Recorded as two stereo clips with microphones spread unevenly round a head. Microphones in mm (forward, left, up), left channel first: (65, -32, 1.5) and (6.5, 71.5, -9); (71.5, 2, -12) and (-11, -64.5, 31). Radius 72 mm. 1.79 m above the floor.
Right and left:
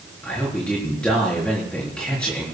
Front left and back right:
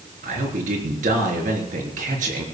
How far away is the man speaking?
About 4 m.